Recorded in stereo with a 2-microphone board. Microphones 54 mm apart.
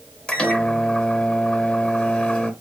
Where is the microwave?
15° left (ahead or behind), 0.8 m.